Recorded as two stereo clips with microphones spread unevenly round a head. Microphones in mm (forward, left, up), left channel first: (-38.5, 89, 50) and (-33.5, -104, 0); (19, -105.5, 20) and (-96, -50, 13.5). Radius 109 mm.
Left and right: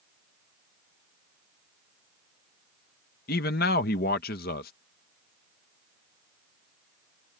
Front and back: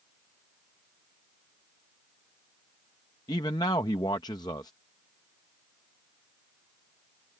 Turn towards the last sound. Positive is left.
turn(degrees=45)